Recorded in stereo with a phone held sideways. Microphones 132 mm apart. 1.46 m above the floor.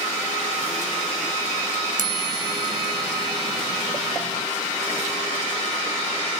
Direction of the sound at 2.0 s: 80° right.